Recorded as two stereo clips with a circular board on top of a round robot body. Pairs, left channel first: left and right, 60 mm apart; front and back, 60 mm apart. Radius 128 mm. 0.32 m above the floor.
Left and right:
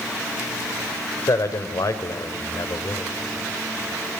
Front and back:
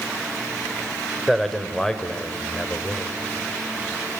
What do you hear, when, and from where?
1.3 s a man speaking: 90° left, 2 m; by 3.1 s 60° left, 2.5 m